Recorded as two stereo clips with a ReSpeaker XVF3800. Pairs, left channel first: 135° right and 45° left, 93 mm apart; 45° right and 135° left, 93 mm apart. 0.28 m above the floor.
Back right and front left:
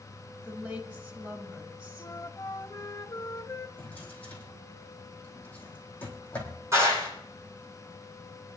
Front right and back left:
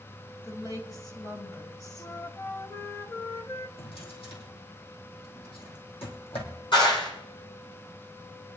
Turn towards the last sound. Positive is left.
turn(degrees=-15)